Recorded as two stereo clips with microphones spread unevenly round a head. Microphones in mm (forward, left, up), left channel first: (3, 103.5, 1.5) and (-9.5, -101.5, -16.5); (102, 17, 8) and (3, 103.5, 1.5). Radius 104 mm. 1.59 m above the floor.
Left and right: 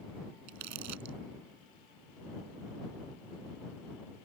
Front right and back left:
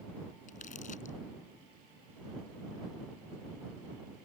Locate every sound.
0.5 s crumpling: 95° right